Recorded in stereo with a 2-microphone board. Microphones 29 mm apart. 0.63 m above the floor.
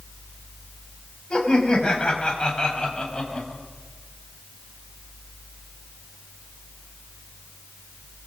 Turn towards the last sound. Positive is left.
turn(degrees=30)  # may be behind; listen again after turning